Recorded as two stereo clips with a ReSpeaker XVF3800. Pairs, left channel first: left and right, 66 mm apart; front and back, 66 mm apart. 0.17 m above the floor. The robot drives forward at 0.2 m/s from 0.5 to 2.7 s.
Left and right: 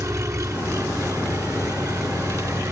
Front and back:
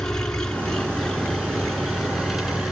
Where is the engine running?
80° right, 1.7 m; by 2.7 s 100° right, 1.7 m.